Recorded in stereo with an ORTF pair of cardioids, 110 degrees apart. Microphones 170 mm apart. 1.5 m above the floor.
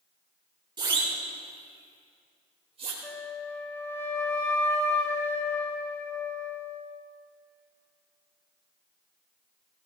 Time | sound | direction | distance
0.8 | a siren | 25° right | 3.5 m
3.0 | a flute | 15° left | 2 m